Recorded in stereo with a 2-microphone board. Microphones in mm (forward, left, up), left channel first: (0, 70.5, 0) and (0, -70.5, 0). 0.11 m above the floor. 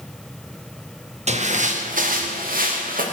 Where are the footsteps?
50° right (ahead or behind), 3 m; by 3.0 s 85° right, 4 m.